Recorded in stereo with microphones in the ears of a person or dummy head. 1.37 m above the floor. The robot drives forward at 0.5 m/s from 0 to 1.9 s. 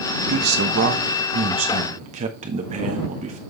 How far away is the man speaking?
About 1.2 m.